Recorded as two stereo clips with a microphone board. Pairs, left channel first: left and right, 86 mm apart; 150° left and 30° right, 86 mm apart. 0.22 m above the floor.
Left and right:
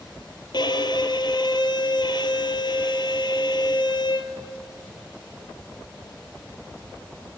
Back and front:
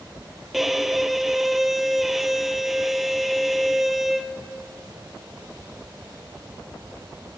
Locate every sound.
0.5 s a violin: 55° left, 1.2 m